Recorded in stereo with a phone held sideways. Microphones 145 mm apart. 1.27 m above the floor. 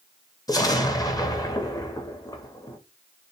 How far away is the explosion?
About 0.6 m.